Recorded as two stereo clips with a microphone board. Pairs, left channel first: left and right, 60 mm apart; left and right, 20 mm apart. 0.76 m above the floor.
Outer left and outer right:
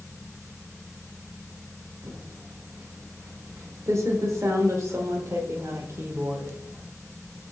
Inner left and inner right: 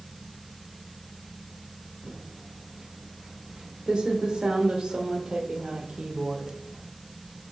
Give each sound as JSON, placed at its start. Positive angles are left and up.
{"t": 2.0, "sound": "typing on a keyboard", "side_deg": -55, "distance_m": 0.7}